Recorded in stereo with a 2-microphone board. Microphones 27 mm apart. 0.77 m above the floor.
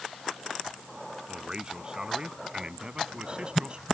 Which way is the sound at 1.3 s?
25° right (ahead or behind).